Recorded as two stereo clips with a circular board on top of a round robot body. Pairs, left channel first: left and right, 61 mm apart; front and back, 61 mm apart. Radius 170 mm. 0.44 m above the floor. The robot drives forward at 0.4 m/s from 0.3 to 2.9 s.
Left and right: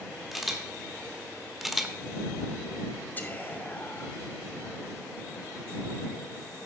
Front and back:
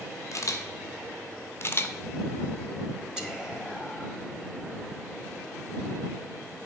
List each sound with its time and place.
0.3 s a camera shutter: 5° right, 1.4 m; by 1.9 s 10° right, 1.0 m
3.2 s whispering: 115° left, 1.4 m